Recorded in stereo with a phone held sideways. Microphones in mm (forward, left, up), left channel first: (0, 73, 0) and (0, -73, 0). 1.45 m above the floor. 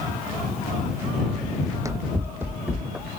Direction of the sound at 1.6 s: 25° right (ahead or behind).